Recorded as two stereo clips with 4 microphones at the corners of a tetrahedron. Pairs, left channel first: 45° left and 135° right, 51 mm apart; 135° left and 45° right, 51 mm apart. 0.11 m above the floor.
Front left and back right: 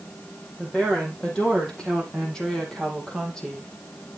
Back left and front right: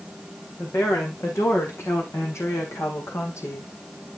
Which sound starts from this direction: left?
A woman speaking, at 0.6 s.